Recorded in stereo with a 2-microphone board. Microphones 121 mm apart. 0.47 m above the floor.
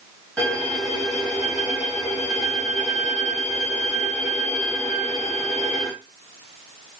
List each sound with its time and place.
0.4 s a violin: 10° left (ahead or behind), 2.5 m